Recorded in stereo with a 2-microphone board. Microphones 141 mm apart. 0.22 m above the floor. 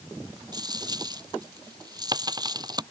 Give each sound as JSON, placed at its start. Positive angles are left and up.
{"t": 0.5, "sound": "a dropped coin", "side_deg": -30}